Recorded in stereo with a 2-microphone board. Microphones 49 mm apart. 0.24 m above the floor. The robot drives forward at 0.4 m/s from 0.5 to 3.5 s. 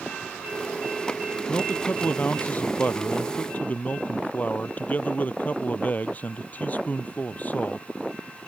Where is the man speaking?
35° left (ahead or behind); by 7.9 s 30° left (ahead or behind).